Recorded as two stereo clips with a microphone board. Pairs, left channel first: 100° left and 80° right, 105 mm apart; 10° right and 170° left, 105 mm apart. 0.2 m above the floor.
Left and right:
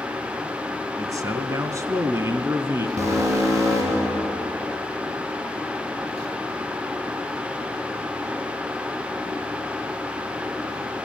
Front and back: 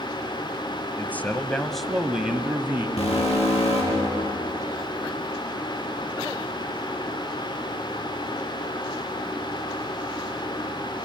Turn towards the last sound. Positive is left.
turn(degrees=-20)